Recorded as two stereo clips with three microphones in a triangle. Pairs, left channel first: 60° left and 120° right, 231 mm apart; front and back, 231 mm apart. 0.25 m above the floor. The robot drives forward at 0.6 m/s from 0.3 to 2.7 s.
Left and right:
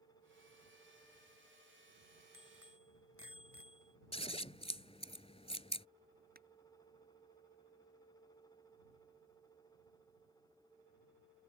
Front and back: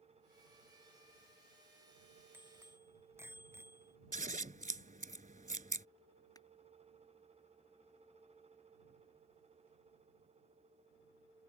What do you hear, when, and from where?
2.3 s a bicycle bell: 100° right
4.1 s scissors: 125° left
6.3 s crushing: 75° right